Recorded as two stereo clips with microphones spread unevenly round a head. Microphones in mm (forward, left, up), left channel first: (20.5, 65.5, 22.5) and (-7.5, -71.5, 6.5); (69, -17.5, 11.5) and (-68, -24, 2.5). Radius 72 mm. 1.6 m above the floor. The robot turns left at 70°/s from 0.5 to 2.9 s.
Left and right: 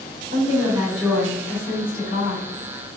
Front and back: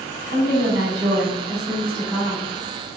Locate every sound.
0.3 s a woman speaking: 155° right, 1.7 m; by 2.5 s 70° left, 1.7 m